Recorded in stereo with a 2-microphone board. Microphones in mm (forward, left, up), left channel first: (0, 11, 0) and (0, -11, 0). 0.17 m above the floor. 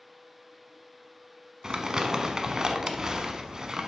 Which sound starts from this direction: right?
Crumpling, at 1.6 s.